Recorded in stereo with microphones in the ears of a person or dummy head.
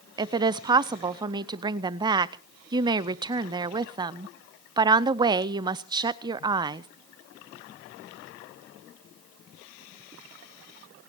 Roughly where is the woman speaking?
Right.